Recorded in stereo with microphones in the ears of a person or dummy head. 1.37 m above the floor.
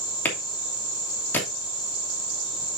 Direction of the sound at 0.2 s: 10° left (ahead or behind).